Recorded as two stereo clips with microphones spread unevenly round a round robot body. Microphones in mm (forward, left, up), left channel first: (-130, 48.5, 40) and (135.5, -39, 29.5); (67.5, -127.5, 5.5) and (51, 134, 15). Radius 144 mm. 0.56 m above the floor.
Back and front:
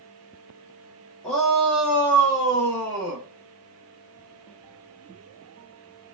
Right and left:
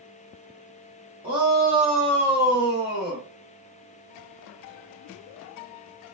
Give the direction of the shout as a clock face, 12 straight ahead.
10 o'clock.